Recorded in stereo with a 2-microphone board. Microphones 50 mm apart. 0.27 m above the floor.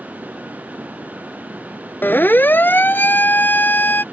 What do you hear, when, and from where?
2.0 s a siren: 40° left (ahead or behind)